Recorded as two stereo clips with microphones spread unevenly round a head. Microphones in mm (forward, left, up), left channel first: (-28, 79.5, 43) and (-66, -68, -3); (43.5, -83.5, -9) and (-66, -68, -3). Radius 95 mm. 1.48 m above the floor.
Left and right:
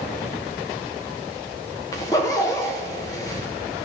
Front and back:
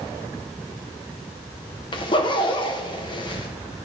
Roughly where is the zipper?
Ahead left.